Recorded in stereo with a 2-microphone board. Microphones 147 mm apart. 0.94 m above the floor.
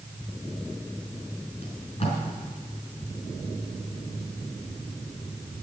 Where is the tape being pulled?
40° left (ahead or behind), 4 m.